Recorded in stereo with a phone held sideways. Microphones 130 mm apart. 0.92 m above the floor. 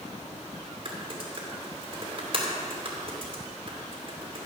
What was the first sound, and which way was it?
Typing on a keyboard, 45° right (ahead or behind).